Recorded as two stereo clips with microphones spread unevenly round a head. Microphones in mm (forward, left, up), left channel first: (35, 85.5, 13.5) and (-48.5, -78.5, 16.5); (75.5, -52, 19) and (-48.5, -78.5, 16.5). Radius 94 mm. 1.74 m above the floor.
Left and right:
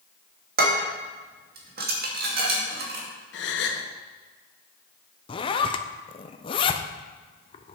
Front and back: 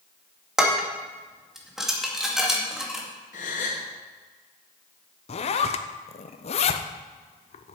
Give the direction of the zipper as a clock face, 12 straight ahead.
12 o'clock.